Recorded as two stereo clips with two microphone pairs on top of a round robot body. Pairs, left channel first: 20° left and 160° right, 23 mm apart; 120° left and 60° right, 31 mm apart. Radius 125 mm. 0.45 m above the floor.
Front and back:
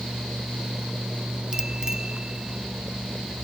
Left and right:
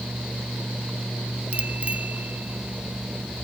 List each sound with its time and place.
1.5 s a bicycle bell: 100° right; by 3.4 s 90° right